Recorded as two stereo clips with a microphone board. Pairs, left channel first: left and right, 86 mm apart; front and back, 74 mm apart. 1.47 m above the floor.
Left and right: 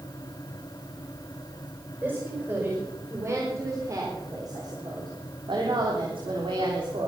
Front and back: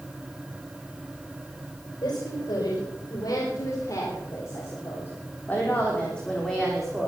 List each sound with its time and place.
2.0 s a woman speaking: 25° right, 5 m; by 7.1 s 95° right, 3.5 m